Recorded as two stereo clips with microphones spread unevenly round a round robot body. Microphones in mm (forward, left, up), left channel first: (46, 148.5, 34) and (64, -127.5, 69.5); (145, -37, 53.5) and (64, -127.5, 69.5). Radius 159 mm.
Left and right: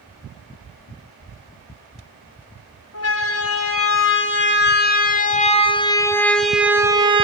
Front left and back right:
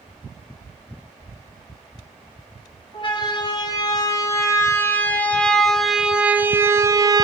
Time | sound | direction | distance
2.9 | a siren | 90° left | 2.5 m